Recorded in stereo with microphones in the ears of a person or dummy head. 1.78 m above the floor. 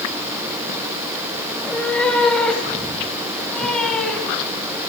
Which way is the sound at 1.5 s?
5° left (ahead or behind).